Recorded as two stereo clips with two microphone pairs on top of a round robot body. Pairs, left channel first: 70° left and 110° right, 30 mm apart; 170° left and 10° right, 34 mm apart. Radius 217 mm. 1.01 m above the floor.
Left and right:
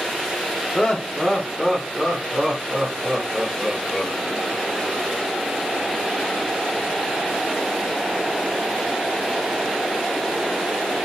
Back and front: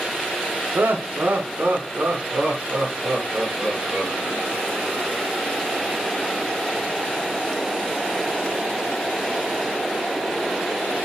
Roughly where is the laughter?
Ahead.